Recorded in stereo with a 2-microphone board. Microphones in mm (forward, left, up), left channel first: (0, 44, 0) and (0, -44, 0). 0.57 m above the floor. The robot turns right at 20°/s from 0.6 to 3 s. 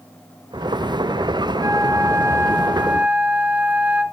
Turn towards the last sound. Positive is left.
turn(degrees=-15)  # may be behind; listen again after turning